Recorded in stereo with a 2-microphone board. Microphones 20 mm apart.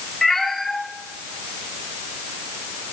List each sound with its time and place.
0.2 s a cat meowing: 10° left (ahead or behind), 2.5 m; by 2.9 s 85° left, 2.5 m